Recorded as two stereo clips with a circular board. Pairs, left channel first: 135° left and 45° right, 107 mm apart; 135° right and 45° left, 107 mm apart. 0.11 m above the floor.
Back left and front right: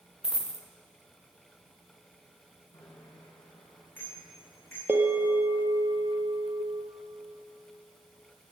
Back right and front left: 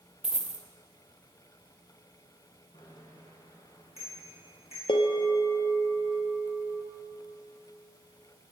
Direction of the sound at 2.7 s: 150° right.